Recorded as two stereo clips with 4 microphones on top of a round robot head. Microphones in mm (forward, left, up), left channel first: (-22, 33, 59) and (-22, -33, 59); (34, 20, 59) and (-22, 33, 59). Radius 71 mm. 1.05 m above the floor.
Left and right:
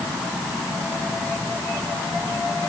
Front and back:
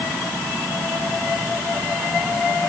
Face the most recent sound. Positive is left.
No sound to turn to.